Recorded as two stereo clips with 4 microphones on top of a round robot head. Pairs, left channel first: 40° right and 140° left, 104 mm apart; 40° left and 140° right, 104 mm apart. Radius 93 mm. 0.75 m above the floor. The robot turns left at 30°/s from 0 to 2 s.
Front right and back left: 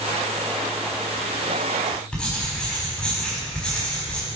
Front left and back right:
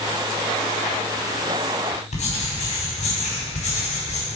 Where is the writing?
45° left, 4.5 m.